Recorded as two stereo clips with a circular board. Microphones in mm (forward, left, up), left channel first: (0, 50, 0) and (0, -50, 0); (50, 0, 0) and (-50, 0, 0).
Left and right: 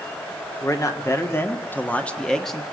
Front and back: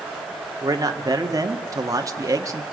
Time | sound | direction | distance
0.6 | a man speaking | 135° left | 1.9 m